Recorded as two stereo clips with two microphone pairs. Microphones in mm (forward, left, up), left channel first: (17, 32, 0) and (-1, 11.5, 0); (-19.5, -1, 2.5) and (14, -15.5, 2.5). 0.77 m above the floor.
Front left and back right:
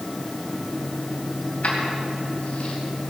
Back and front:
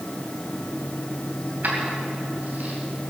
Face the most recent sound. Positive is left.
turn(degrees=20)